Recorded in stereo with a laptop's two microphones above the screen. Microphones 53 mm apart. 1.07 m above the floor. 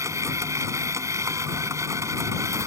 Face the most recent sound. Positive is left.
turn(degrees=-85)